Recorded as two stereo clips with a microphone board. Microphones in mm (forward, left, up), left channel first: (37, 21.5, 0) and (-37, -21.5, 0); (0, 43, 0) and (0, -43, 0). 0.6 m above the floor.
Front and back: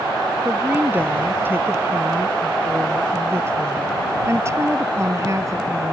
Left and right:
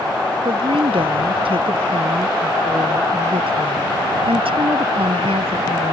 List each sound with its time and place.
0.5 s a woman speaking: 80° right; by 5.9 s 95° right